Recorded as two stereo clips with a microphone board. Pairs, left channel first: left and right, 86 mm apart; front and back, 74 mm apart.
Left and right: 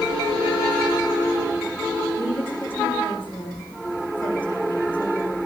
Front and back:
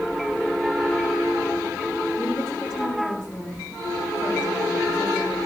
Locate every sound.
2.1 s a woman speaking: 25° left, 9 m; by 5.4 s 15° left, 9 m